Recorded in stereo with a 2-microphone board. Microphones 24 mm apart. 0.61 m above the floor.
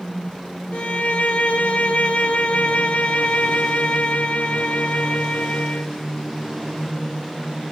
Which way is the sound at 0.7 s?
80° left.